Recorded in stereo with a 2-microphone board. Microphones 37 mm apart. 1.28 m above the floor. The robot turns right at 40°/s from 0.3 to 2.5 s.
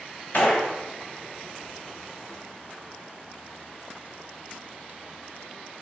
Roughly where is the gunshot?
Left.